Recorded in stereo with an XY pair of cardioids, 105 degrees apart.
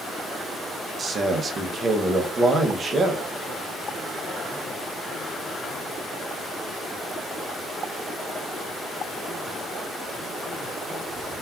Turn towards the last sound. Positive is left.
turn(degrees=-40)